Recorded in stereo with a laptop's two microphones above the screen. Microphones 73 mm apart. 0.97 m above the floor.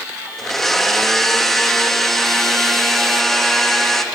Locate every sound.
0.4 s a blender: 5° left (ahead or behind), 1.0 m